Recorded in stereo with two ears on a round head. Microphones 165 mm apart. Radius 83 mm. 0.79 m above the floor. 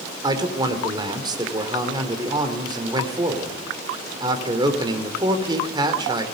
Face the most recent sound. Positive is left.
turn(degrees=-25)  # may be behind; listen again after turning